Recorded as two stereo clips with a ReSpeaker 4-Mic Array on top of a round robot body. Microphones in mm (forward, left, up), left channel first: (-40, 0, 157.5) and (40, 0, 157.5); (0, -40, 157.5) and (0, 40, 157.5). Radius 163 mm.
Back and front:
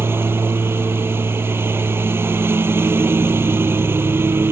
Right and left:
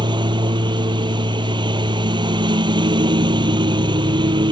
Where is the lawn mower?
65° left.